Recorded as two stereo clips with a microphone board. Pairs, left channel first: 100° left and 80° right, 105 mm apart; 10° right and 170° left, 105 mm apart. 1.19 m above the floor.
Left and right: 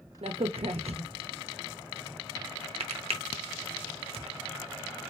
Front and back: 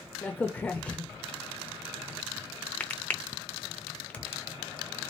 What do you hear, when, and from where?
0.2 s a crack: 85° right, 0.7 m